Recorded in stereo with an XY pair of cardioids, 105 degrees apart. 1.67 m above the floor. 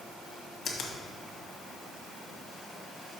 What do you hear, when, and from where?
0.7 s a finger snap: 55° left, 1.8 m